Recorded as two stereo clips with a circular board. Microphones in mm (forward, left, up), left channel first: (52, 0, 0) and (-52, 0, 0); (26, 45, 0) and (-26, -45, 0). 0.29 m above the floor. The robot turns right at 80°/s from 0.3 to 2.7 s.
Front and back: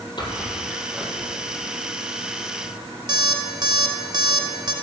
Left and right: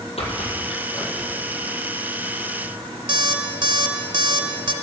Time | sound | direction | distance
0.2 | a squeak | 45° left | 1.9 m
3.1 | an alarm clock | 145° right | 0.7 m